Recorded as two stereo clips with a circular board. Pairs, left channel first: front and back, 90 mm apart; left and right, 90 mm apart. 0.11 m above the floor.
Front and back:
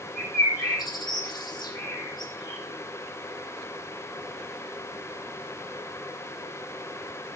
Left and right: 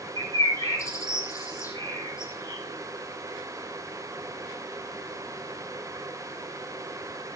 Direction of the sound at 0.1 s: 35° left.